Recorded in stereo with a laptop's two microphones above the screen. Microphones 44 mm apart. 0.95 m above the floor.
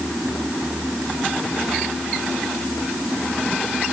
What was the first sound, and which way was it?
Only background noise.